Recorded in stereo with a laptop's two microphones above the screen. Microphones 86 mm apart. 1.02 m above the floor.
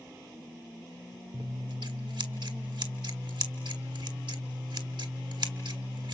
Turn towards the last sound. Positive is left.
turn(degrees=-65)  # may be behind; listen again after turning